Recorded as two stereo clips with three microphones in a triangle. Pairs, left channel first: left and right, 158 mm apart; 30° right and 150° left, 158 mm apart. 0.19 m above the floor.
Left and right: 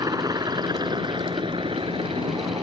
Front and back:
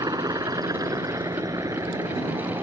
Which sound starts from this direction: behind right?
A helicopter, at 0.0 s.